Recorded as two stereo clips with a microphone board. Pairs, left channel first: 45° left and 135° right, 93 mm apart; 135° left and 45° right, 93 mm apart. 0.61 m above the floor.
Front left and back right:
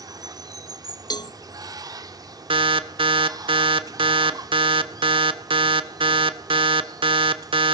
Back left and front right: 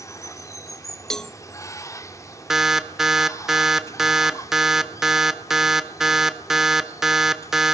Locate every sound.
0.0 s running water: 175° right, 1.2 m
1.1 s a cowbell: 50° left, 0.6 m
2.5 s an alarm: 130° right, 1.3 m